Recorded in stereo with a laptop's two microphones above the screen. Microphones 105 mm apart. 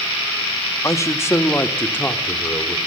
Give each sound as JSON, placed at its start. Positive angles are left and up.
{"t": 0.8, "sound": "a man speaking", "side_deg": 30, "distance_m": 1.2}